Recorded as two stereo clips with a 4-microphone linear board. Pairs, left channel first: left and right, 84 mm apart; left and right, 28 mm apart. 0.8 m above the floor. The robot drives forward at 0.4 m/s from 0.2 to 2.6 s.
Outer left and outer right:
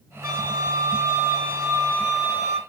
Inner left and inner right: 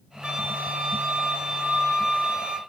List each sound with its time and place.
0.2 s a flute: 40° right (ahead or behind), 1.0 m; by 2.6 s 30° right (ahead or behind), 1.3 m